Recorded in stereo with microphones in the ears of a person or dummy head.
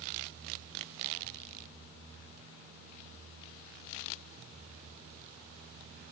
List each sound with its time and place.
Only background noise.